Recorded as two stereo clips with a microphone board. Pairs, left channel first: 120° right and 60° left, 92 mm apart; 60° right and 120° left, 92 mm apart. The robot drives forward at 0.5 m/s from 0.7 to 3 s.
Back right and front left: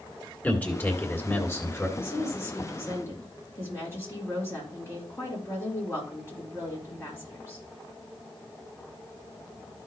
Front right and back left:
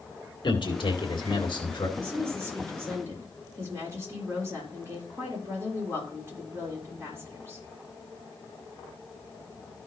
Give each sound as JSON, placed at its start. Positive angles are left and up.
{"t": 0.4, "sound": "a man speaking", "azimuth_deg": -50, "distance_m": 2.0}
{"t": 2.0, "sound": "a woman speaking", "azimuth_deg": 180, "distance_m": 3.5}